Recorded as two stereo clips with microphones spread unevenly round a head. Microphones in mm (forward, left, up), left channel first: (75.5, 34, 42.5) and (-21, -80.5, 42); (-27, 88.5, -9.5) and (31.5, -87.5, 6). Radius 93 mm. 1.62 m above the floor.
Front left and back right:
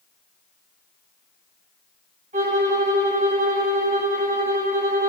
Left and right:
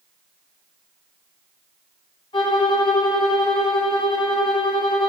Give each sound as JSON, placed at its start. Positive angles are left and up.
{"t": 2.3, "sound": "a violin", "azimuth_deg": 175, "distance_m": 2.5}